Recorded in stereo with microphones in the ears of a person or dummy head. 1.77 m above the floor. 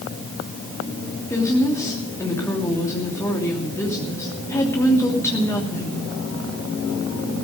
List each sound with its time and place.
1.3 s a woman speaking: 15° left (ahead or behind), 3 m